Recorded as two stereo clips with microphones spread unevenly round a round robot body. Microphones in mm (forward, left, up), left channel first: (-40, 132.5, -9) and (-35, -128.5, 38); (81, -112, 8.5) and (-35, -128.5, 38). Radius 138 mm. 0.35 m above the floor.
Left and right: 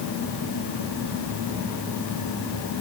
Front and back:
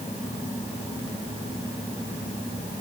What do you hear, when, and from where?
Only background noise.